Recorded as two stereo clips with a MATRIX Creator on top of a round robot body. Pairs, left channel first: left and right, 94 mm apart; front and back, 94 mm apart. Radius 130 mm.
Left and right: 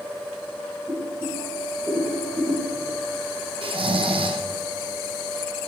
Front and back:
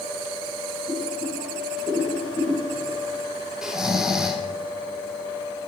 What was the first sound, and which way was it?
Boiling, 30° right.